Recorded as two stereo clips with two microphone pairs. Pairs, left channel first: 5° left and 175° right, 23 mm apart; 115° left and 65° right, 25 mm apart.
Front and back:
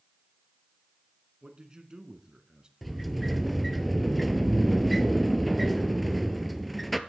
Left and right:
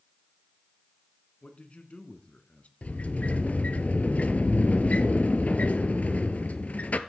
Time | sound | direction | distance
1.4 | a man speaking | 135° left | 2.5 m
2.8 | a sliding door | 95° left | 1.0 m